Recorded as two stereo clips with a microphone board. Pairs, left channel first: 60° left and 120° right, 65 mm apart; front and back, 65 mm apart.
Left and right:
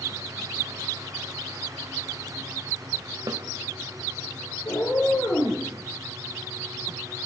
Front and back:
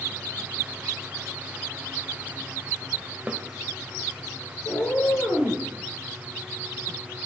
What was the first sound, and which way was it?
A snare drum, 110° right.